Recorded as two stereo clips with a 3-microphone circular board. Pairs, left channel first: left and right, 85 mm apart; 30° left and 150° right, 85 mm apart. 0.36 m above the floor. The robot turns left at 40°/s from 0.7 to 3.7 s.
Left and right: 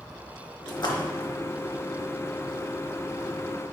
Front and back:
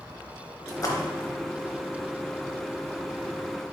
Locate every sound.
0.7 s a splash: 75° left, 0.7 m; by 1.4 s 45° left, 0.7 m